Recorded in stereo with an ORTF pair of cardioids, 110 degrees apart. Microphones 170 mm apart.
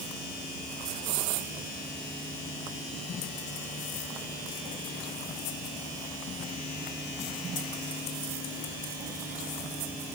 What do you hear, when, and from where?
Only background noise.